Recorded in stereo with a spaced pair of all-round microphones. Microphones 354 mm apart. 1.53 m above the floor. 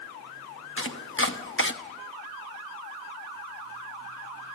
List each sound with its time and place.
0.8 s chopping: 35° left (ahead or behind), 1.0 m